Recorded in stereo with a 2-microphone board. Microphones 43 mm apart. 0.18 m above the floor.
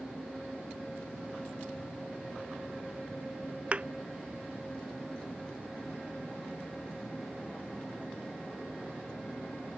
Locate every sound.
3.7 s a thud: 30° right (ahead or behind)